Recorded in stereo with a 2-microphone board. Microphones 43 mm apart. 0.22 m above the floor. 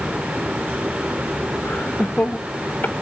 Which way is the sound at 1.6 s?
50° left (ahead or behind).